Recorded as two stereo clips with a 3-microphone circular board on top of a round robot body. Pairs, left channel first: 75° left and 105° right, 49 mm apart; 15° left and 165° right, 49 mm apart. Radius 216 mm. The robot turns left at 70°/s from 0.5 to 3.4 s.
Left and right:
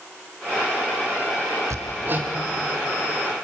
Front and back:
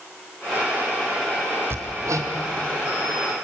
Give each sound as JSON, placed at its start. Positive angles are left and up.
{"t": 1.7, "sound": "hammering", "azimuth_deg": -125, "distance_m": 1.1}